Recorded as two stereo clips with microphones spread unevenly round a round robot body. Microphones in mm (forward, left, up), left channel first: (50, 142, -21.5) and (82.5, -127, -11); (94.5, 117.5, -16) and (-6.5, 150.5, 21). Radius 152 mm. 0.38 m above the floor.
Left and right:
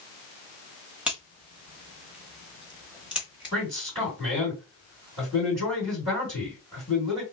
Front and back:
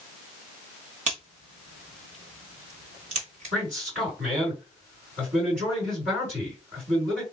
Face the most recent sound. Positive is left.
turn(degrees=-160)